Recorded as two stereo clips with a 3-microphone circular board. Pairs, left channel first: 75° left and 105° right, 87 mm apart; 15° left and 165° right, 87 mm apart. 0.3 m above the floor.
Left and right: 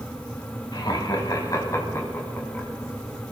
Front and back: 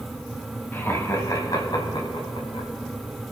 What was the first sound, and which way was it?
Laughter, 75° left.